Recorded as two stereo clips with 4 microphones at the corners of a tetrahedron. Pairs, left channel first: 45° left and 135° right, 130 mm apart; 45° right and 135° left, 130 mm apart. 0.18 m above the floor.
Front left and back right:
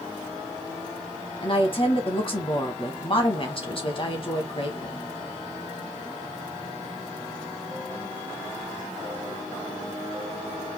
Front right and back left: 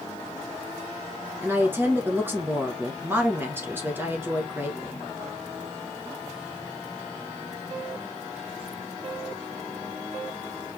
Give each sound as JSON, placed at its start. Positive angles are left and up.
{"t": 1.4, "sound": "a woman speaking", "azimuth_deg": 70, "distance_m": 1.6}